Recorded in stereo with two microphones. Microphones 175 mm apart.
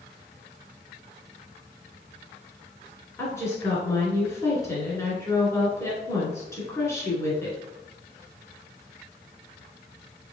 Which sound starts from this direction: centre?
A woman speaking, at 3.2 s.